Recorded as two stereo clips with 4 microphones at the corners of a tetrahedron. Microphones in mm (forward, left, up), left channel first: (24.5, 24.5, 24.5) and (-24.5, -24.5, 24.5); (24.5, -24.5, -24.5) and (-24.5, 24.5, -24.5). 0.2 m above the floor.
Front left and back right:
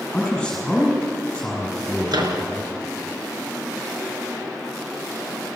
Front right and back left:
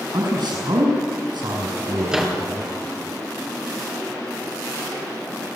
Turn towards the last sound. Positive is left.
turn(degrees=-145)